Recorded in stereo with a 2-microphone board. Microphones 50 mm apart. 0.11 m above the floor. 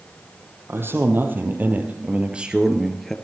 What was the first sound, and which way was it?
A man speaking, 50° right (ahead or behind).